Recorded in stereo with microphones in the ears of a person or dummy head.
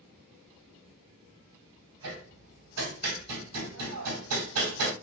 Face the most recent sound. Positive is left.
turn(degrees=-80)